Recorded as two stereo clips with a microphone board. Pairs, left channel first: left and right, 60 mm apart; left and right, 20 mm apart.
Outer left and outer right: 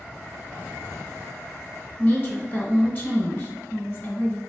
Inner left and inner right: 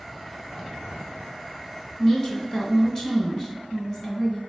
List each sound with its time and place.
2.0 s a woman speaking: 40° left (ahead or behind), 1.9 m